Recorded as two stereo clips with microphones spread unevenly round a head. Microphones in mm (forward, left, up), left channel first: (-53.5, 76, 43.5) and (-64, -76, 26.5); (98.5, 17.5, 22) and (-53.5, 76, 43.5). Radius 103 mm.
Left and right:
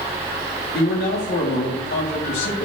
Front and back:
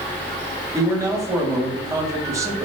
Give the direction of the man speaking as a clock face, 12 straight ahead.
9 o'clock.